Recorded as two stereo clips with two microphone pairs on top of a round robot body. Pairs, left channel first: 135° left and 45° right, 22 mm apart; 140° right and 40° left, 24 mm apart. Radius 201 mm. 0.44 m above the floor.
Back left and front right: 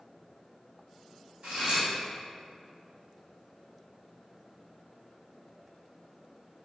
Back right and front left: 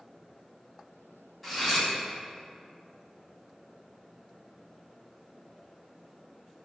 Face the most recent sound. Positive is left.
turn(degrees=-55)